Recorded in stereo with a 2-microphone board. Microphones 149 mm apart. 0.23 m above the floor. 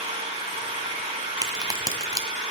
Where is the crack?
25° right (ahead or behind), 1.6 m.